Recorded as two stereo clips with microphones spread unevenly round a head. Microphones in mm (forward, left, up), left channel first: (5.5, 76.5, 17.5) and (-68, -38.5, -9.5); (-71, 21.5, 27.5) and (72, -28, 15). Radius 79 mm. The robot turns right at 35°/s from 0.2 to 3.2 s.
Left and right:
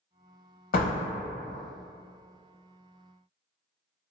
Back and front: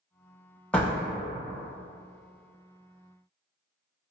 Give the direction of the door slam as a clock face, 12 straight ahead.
9 o'clock.